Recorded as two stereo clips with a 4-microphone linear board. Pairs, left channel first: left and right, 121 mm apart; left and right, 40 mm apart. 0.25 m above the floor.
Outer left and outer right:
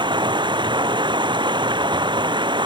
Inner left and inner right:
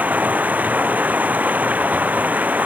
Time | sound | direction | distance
0.0 | running water | 40° right (ahead or behind) | ?